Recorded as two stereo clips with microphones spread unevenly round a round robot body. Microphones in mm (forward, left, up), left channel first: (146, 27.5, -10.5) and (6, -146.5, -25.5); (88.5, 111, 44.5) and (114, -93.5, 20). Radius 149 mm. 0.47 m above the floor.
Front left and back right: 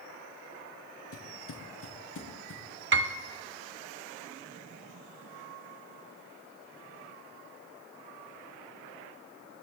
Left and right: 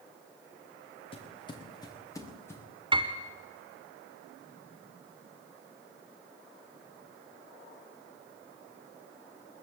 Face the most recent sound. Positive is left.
turn(degrees=-140)